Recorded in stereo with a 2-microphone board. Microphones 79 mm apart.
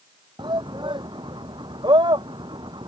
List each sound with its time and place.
0.4 s a shout: 75° right (ahead or behind)